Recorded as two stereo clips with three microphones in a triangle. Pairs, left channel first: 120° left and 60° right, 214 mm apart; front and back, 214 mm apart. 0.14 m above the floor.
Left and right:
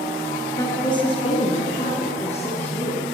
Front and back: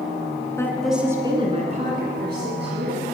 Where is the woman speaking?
60° left, 1.3 m; by 3.0 s 175° left, 2.5 m.